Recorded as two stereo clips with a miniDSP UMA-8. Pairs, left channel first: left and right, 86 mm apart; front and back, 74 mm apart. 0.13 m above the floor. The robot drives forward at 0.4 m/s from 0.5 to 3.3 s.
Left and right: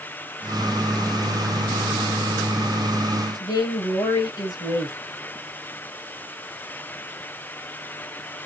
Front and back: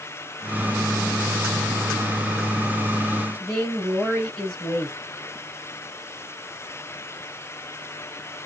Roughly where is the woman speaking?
Left.